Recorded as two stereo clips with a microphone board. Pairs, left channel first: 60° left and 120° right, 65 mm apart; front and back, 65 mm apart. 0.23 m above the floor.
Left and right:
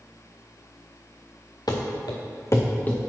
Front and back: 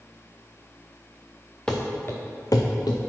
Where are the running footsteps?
75° left, 1.5 m; by 3.0 s 10° right, 1.5 m.